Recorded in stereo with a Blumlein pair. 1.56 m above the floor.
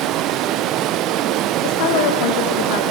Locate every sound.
0.0 s running water: 35° right, 0.9 m
1.6 s a woman speaking: 45° left, 2.0 m